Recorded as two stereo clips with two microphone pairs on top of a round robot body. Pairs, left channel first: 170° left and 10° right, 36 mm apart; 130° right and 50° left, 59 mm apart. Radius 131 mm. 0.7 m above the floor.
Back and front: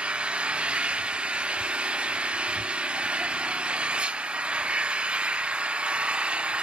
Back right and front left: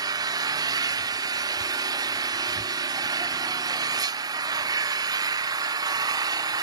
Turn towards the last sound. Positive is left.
turn(degrees=55)